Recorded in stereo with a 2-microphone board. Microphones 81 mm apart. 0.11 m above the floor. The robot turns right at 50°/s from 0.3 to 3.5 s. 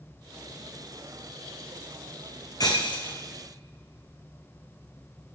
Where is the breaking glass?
50° left (ahead or behind), 0.9 m; by 3.2 s 80° left, 0.9 m.